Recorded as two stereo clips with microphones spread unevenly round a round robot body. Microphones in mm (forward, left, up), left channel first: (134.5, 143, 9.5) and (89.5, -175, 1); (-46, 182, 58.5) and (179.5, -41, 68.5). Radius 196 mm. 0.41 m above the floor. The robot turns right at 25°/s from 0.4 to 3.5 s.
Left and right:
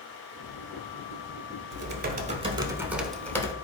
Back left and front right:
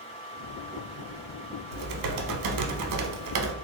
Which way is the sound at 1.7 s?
40° right.